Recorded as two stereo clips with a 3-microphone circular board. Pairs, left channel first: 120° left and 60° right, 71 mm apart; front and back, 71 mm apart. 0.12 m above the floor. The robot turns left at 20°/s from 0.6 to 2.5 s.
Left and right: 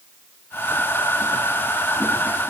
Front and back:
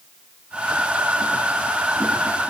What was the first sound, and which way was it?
Only background noise.